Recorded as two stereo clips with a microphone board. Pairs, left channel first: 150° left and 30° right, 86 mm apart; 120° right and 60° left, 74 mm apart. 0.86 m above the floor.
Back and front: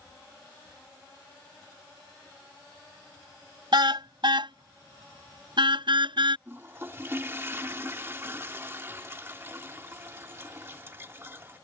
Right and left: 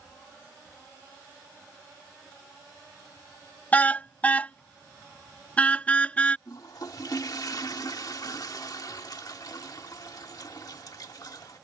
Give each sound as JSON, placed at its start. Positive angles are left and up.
{"t": 3.7, "sound": "a car horn", "azimuth_deg": -50}
{"t": 6.5, "sound": "a toilet flushing", "azimuth_deg": -90}